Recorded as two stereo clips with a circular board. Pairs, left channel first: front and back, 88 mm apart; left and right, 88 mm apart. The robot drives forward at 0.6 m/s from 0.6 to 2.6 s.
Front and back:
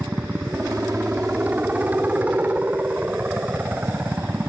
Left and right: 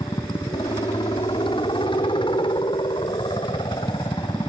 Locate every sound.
0.0 s a helicopter: 105° left; by 4.5 s 110° left